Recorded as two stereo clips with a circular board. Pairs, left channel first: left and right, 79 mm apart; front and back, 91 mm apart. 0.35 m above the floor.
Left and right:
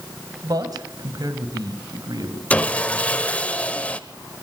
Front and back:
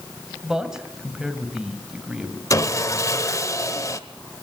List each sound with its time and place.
0.4 s a man speaking: 100° right, 2 m
2.5 s sawing: 25° left, 0.8 m